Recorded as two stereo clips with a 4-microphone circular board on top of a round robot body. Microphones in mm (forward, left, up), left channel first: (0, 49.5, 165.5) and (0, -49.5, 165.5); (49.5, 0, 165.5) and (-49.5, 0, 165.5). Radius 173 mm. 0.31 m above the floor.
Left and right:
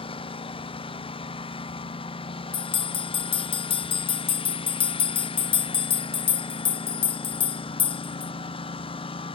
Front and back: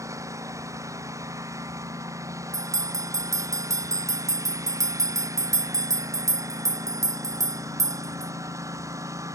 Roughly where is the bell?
Behind left.